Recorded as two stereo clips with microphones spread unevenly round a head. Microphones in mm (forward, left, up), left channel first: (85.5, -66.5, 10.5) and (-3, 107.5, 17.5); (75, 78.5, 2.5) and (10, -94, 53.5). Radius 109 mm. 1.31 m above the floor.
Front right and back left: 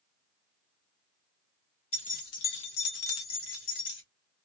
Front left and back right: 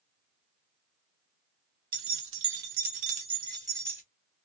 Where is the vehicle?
I don't hear a vehicle.